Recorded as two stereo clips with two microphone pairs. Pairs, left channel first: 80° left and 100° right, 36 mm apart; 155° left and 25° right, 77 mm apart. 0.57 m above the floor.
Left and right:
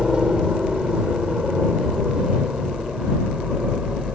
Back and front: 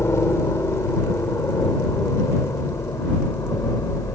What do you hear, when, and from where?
0.0 s a helicopter: 165° right